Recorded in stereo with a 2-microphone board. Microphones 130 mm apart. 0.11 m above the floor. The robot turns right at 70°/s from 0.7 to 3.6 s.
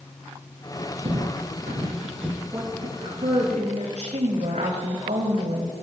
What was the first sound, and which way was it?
Footsteps, 55° right (ahead or behind).